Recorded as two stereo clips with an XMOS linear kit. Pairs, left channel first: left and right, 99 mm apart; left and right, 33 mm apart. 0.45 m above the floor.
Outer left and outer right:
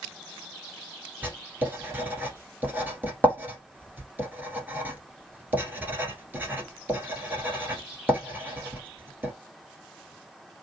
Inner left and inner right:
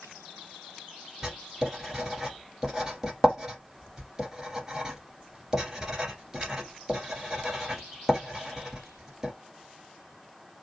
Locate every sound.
1.2 s writing: 20° right (ahead or behind), 1.4 m